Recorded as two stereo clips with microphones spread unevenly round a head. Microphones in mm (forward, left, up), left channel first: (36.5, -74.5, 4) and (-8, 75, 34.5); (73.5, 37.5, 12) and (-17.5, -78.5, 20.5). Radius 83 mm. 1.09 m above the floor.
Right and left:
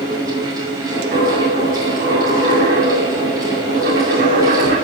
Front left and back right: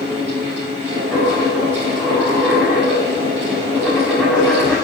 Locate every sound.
0.0 s a fan: 175° left, 5 m
1.1 s a dropped coin: 140° left, 5.5 m